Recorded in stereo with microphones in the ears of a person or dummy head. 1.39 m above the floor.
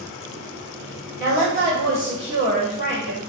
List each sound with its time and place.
1.2 s a woman speaking: 50° left (ahead or behind), 1.2 m